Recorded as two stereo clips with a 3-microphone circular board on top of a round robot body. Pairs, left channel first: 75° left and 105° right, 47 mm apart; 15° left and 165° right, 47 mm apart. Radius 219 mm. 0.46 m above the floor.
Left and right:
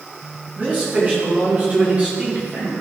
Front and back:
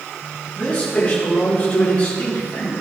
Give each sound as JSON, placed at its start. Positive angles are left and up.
{"t": 0.6, "sound": "a man speaking", "azimuth_deg": -50, "distance_m": 4.5}